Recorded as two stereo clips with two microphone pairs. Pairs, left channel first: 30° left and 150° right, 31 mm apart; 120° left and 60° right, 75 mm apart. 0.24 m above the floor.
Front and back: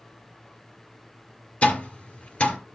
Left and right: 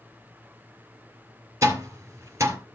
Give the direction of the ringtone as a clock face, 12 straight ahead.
No ringtone in this recording.